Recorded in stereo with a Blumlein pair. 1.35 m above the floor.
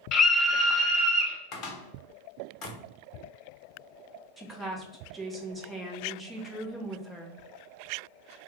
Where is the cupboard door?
35° left, 0.8 m.